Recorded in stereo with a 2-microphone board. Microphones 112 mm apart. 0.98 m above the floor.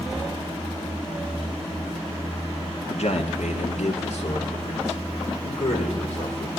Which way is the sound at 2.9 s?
70° left (ahead or behind).